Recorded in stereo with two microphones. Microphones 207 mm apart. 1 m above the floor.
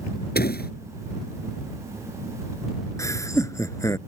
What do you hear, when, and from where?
0.3 s a door slam: 50° left (ahead or behind)
3.0 s laughter: 15° left (ahead or behind)